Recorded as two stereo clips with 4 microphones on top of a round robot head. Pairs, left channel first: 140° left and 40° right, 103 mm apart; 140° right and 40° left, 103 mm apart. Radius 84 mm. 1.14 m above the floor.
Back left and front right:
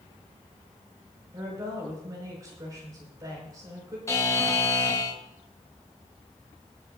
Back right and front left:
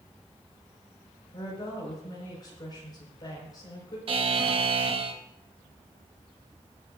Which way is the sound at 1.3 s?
95° right.